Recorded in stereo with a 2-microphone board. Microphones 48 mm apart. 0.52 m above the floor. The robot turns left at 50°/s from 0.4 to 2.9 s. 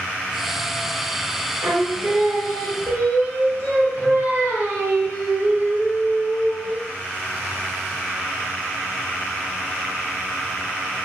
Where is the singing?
60° right, 1.0 m; by 6.8 s 125° right, 1.0 m.